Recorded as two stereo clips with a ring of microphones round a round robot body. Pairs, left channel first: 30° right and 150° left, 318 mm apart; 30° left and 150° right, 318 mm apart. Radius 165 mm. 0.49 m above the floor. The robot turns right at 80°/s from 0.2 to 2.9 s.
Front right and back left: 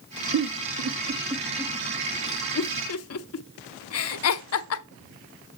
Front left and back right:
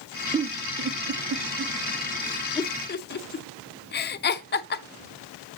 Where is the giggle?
140° left, 0.7 m; by 4.8 s 15° right, 0.7 m.